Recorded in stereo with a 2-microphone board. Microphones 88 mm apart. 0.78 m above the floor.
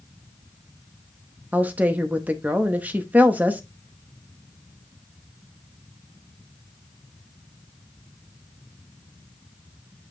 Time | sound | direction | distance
1.5 | a woman speaking | 20° right (ahead or behind) | 0.7 m